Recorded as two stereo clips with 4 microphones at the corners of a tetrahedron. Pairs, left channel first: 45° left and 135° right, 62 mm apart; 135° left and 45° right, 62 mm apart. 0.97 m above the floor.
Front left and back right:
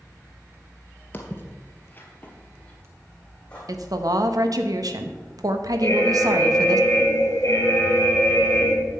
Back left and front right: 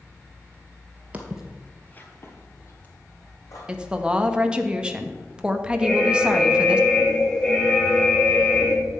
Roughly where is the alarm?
Ahead left.